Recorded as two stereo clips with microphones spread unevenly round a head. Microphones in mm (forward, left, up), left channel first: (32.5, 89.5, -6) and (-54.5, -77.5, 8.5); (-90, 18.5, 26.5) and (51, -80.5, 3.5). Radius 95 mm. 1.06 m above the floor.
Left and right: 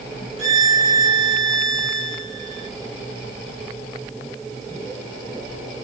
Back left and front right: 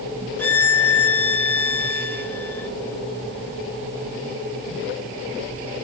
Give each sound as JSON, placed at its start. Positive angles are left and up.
{"t": 0.4, "sound": "a violin", "azimuth_deg": -140, "distance_m": 3.5}